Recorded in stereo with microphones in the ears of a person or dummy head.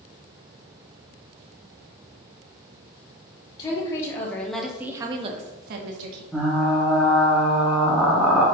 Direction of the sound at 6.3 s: Centre (ahead or behind).